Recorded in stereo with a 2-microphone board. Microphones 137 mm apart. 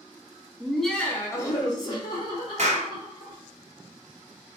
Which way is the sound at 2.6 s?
50° right (ahead or behind).